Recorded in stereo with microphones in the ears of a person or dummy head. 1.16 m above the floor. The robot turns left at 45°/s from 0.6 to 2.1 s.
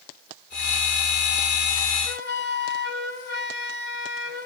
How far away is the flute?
About 1.6 m.